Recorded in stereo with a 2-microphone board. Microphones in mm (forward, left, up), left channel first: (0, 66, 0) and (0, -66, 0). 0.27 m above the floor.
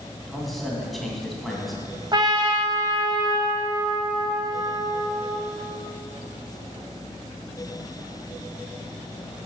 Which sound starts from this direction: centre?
A man speaking, at 0.3 s.